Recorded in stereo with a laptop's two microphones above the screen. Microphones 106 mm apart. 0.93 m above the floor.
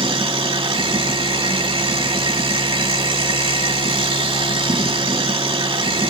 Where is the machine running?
60° right (ahead or behind), 1.3 m.